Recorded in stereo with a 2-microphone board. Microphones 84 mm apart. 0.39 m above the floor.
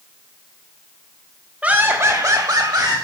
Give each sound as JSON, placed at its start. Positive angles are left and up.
{"t": 1.6, "sound": "laughter", "side_deg": -15, "distance_m": 1.2}